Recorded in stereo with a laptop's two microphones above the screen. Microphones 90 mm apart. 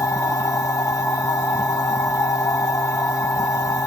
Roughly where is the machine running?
Left.